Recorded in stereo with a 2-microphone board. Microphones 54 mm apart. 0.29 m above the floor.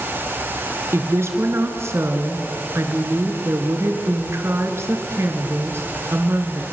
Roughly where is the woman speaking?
Right.